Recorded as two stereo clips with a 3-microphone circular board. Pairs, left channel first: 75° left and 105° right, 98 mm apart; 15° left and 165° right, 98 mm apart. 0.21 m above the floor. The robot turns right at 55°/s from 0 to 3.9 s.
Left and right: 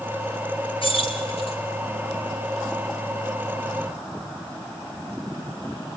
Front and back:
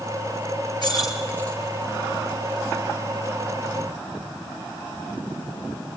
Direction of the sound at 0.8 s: 55° left.